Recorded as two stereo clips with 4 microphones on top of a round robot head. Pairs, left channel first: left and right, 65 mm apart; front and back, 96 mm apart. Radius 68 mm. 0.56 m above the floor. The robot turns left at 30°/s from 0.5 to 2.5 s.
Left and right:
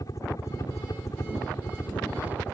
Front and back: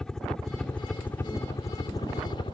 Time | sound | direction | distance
0.0 | a helicopter | 80° left | ?